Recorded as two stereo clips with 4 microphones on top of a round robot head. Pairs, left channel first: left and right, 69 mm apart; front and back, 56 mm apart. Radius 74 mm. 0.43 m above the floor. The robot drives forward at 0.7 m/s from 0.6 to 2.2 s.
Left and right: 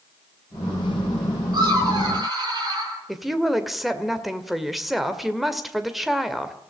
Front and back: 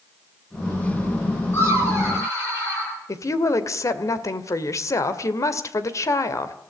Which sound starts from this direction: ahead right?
Laughter, at 1.5 s.